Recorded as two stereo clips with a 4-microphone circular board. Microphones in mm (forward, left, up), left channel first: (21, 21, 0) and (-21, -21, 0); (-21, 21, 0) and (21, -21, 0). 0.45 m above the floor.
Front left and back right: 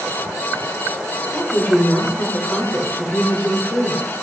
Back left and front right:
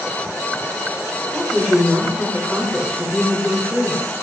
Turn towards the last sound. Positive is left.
turn(degrees=30)